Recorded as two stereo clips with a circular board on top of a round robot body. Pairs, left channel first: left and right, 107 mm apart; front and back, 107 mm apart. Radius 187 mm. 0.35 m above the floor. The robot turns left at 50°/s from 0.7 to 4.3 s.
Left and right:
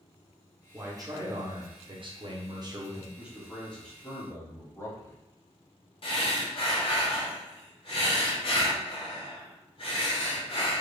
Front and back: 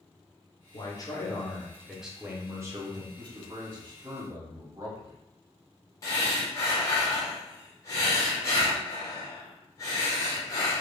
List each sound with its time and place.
0.7 s a man speaking: 30° right, 1.1 m; by 3.1 s 145° right, 1.1 m
3.2 s a man speaking: 165° right, 1.8 m; by 5.2 s 140° left, 1.8 m
6.0 s breathing: 60° left, 1.2 m